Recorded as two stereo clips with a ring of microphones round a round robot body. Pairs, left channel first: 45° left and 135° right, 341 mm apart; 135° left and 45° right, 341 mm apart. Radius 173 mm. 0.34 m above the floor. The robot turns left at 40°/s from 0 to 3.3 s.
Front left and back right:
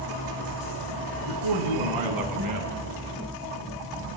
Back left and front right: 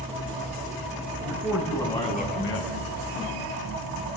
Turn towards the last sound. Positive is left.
turn(degrees=160)